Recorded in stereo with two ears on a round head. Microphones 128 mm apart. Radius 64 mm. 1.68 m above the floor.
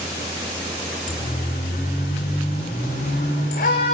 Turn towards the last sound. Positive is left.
turn(degrees=75)  # may be behind; listen again after turning